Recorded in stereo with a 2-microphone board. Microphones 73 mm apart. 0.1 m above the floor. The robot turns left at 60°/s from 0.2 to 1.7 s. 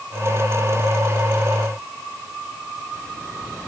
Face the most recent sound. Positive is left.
No sound to turn to.